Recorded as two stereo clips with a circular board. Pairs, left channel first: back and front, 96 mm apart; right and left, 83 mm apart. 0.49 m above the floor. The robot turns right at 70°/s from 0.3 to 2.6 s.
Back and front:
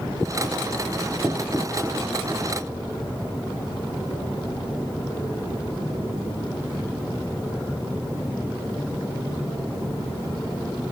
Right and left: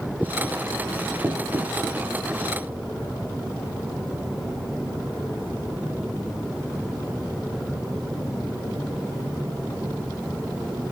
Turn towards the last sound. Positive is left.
turn(degrees=140)